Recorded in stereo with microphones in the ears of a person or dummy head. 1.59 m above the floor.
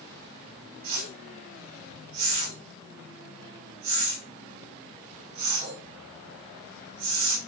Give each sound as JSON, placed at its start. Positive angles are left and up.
{"t": 0.8, "sound": "a whoosh", "side_deg": -30, "distance_m": 3.0}